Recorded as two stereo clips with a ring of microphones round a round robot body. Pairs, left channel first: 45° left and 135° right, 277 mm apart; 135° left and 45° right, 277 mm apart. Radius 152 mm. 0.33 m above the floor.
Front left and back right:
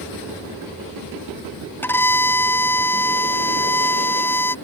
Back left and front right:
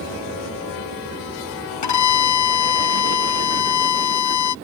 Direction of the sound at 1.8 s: 125° left.